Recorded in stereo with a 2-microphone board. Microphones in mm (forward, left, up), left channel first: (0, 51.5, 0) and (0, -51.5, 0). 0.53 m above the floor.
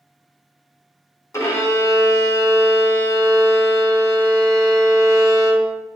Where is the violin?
30° left (ahead or behind), 1.0 m.